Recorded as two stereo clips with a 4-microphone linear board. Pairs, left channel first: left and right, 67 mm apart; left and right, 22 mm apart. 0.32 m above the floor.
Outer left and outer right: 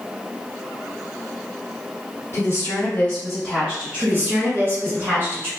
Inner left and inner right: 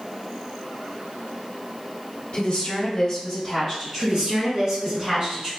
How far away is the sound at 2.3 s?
About 1.1 m.